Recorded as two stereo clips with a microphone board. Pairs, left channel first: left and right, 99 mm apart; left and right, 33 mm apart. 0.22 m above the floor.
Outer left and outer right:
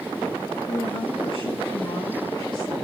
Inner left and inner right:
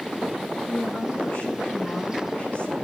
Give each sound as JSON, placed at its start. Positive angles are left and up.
{"t": 0.7, "sound": "a woman speaking", "side_deg": 70, "distance_m": 6.0}